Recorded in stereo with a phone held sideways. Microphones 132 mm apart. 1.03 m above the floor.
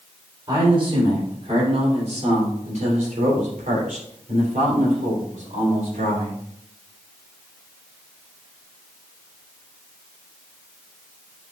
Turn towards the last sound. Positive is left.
turn(degrees=-75)  # may be behind; listen again after turning